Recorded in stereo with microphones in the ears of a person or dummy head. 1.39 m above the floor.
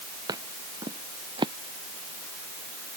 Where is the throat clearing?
No throat clearing in this recording.